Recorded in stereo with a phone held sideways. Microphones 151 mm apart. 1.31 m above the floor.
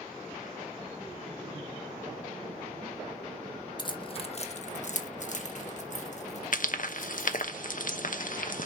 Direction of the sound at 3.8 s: 30° left (ahead or behind).